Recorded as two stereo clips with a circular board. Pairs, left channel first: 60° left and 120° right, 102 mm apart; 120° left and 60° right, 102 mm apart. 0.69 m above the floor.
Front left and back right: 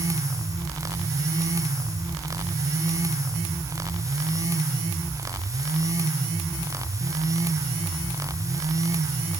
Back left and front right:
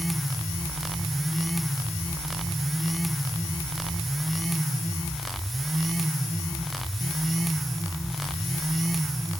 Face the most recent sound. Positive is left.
No sound to turn to.